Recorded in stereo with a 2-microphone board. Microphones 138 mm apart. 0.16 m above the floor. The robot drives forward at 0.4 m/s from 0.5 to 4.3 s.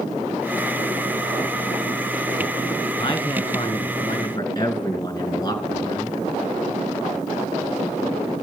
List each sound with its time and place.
3.0 s a man speaking: 35° left (ahead or behind), 2.5 m; by 6.2 s 30° left (ahead or behind), 2.5 m